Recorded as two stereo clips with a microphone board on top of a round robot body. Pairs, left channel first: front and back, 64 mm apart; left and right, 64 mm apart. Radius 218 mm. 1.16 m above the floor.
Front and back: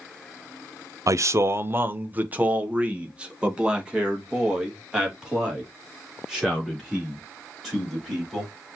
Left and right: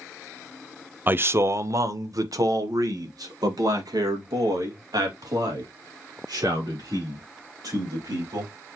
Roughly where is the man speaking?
Behind right.